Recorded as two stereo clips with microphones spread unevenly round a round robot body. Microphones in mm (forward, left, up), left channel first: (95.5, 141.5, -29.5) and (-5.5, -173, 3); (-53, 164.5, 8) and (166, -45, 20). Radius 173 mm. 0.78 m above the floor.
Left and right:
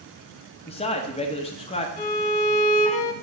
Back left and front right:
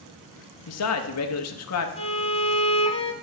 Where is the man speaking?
135° left, 1.1 m.